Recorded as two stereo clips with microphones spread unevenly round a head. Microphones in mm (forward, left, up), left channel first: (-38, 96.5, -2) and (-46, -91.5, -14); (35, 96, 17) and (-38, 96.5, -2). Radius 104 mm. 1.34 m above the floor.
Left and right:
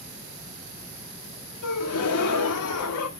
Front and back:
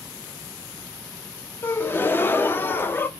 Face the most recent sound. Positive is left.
turn(degrees=70)